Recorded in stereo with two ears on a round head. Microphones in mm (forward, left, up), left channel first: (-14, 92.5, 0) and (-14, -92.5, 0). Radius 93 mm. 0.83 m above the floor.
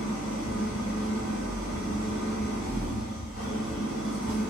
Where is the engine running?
70° left (ahead or behind), 1.5 m.